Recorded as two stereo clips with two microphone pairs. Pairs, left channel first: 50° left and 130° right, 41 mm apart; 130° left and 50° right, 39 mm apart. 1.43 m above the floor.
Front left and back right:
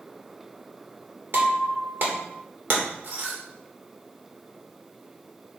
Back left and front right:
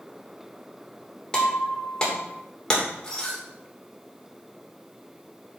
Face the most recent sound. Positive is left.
turn(degrees=-160)